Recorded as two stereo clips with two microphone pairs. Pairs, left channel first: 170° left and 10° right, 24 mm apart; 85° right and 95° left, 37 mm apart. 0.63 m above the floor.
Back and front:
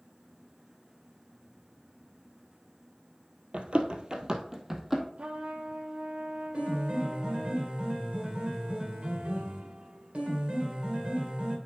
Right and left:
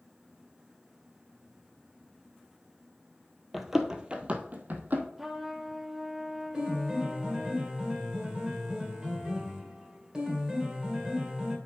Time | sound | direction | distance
3.5 | running footsteps | 10° left | 1.1 m
5.2 | a trumpet | 15° left | 0.9 m
6.5 | a piano | 30° left | 2 m